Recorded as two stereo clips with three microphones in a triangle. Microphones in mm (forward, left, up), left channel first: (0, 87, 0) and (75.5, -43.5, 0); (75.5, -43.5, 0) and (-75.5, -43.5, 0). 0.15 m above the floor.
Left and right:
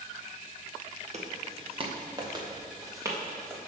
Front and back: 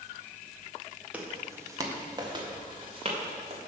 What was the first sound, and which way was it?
Footsteps, 100° right.